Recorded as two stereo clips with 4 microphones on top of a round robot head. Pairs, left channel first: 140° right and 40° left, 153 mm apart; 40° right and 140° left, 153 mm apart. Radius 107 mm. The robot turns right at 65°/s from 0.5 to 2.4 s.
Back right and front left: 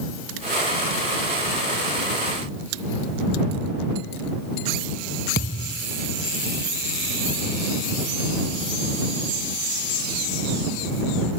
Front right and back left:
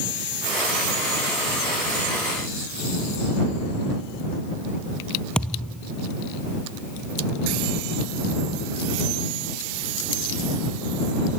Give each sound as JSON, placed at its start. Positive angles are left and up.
{"t": 5.3, "sound": "a thud", "azimuth_deg": -125}